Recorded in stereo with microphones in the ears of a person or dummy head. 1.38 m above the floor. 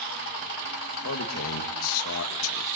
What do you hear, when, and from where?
1.0 s a man speaking: 85° left, 2 m